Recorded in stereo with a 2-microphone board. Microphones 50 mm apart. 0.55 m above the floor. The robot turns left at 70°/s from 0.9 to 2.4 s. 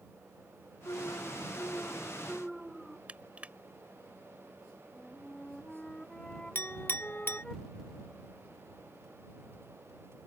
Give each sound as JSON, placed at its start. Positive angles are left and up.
{"t": 0.8, "sound": "an alarm", "azimuth_deg": 100}
{"t": 3.1, "sound": "crushing", "side_deg": -25}
{"t": 4.9, "sound": "a flute", "side_deg": 15}
{"t": 6.5, "sound": "a clink", "side_deg": 45}